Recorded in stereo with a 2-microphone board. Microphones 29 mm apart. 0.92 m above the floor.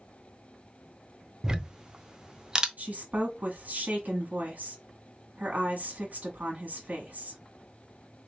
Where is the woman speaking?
65° right (ahead or behind), 1.4 m.